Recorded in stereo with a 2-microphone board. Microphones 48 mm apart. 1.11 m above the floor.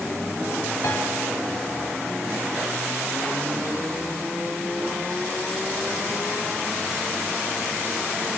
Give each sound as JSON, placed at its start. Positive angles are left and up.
{"t": 0.8, "sound": "a piano", "side_deg": 85, "distance_m": 6.0}